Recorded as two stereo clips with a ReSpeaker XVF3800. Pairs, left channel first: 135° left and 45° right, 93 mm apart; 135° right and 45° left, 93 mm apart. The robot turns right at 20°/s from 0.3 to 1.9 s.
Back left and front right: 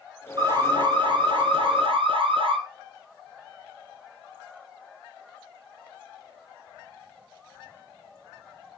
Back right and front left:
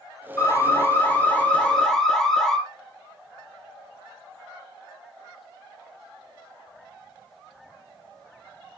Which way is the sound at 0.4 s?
80° right.